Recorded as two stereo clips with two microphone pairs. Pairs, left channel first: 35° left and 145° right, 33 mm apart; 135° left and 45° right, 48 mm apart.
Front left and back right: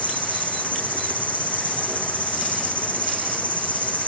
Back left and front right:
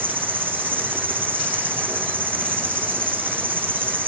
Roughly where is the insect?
Ahead.